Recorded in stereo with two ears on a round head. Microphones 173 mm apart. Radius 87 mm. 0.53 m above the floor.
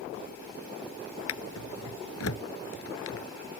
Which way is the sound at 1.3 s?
80° left.